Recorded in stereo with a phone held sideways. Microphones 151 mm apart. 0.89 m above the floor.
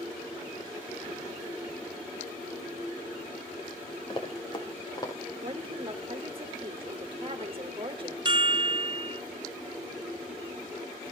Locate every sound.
4.1 s running footsteps: 35° left (ahead or behind), 5 m; by 5.1 s 25° left (ahead or behind), 6 m
5.4 s a woman speaking: 35° right (ahead or behind), 3 m
8.2 s a chime: 30° right (ahead or behind), 0.7 m